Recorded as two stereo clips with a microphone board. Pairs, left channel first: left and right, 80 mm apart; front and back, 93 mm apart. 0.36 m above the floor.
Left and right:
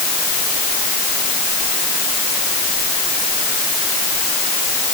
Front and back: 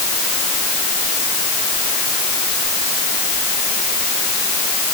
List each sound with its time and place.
Only background noise.